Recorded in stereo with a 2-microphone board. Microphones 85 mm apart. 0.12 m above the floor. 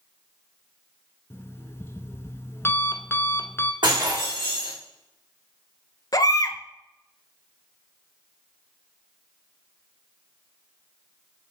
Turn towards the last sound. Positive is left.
turn(degrees=50)  # may be behind; listen again after turning